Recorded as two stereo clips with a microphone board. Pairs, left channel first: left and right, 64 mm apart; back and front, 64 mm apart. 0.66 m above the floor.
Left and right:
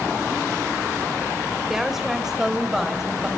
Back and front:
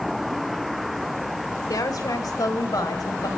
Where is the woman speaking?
175° right, 2 m; by 3.3 s 170° right, 3 m.